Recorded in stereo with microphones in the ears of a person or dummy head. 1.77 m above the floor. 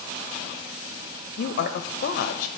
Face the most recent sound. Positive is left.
turn(degrees=60)  # may be behind; listen again after turning